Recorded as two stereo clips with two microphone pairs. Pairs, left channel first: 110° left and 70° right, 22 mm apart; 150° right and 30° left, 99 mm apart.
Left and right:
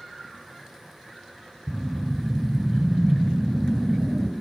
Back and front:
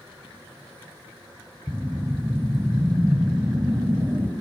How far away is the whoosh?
About 1.3 m.